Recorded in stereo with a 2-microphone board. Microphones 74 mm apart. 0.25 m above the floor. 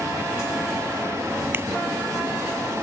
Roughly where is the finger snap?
Right.